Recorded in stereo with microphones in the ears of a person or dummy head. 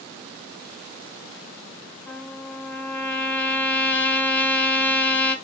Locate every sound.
2.1 s a trumpet: 10° left (ahead or behind), 3 m